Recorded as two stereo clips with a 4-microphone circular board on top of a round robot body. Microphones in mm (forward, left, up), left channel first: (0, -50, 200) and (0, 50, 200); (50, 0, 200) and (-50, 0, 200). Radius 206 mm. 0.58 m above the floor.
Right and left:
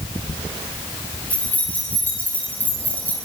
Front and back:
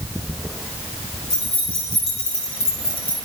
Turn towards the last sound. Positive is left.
turn(degrees=-20)